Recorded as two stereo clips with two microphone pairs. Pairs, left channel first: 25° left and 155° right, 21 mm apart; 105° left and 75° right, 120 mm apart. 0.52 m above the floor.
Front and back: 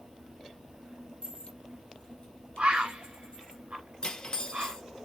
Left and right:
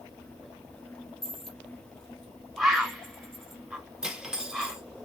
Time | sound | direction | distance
1.2 | a dropped coin | 20° left | 1.3 m
2.6 | a bird | 160° right | 1.1 m
4.0 | cutlery clinking | 5° left | 0.8 m